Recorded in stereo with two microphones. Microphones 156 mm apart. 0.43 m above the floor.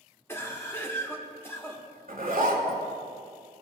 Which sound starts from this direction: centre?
A cough, at 0.3 s.